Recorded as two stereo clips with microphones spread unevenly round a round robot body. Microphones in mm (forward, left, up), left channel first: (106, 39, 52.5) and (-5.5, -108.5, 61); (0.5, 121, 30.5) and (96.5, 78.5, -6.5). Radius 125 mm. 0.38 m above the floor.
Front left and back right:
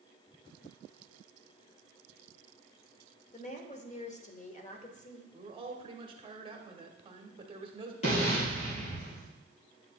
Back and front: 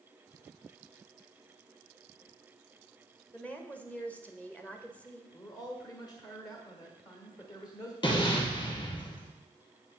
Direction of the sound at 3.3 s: 60° left.